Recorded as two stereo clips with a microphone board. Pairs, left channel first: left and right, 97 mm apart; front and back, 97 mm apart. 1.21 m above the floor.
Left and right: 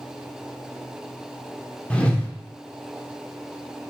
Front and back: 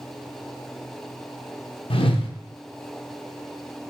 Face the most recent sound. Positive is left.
turn(degrees=15)